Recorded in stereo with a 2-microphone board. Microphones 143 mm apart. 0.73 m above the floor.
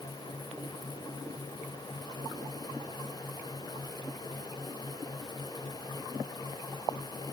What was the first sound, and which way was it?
Only background noise.